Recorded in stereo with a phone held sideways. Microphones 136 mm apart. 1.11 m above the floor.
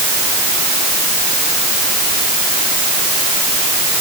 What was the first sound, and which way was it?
Only background noise.